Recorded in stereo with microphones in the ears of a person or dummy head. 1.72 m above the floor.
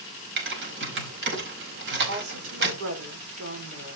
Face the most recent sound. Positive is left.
turn(degrees=-80)